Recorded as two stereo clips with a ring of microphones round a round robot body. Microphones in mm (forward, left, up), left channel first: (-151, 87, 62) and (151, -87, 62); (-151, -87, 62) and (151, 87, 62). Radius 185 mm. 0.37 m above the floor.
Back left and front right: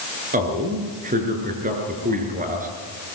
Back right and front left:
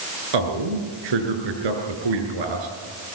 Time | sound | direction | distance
0.3 | a man speaking | 40° left | 6 m